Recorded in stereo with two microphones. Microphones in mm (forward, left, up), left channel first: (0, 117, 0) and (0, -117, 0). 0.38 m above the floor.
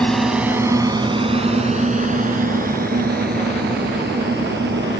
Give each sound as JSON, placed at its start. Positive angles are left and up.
{"t": 0.0, "sound": "a drone", "side_deg": 5}